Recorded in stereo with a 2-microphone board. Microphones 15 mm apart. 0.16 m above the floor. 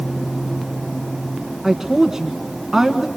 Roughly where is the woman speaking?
Right.